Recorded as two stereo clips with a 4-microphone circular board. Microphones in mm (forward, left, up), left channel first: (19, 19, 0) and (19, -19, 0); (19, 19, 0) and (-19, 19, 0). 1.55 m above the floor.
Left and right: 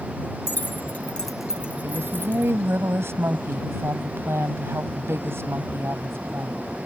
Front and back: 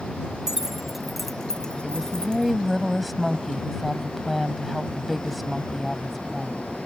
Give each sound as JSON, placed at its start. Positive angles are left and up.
{"t": 0.5, "sound": "keys jangling", "azimuth_deg": 105}
{"t": 1.8, "sound": "a woman speaking", "azimuth_deg": -90}